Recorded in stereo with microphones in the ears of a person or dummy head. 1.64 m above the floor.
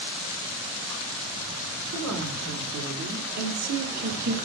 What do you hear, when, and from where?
1.9 s a woman speaking: 85° right, 5.5 m; by 4.3 s 50° right (ahead or behind), 3 m